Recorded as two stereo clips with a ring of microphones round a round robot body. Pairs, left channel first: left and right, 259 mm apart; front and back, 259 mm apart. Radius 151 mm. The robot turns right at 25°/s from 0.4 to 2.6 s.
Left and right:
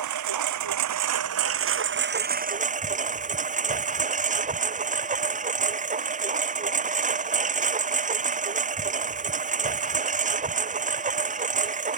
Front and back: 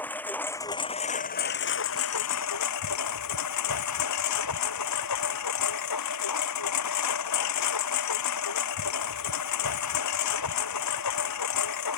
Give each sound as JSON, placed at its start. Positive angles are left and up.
{"t": 0.0, "sound": "a lawn mower", "azimuth_deg": -85}